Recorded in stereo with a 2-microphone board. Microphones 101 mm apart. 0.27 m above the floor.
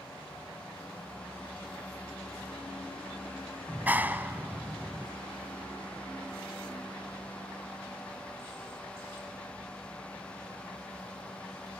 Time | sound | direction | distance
3.7 | a clap | 20° right (ahead or behind) | 1.5 m